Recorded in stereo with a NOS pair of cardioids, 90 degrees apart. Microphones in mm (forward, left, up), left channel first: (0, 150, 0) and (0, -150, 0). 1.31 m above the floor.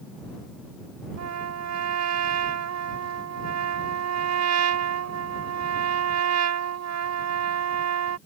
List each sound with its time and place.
1.2 s a trumpet: 65° right